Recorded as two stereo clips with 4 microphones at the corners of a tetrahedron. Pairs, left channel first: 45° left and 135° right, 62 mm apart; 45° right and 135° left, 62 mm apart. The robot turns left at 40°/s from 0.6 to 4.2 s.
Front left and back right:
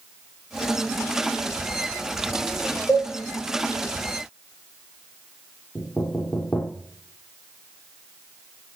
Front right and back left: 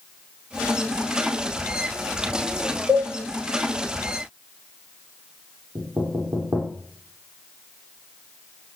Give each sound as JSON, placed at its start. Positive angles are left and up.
{"t": 2.9, "sound": "a cowbell", "azimuth_deg": 100, "distance_m": 4.5}
{"t": 5.8, "sound": "knocking", "azimuth_deg": 105, "distance_m": 5.5}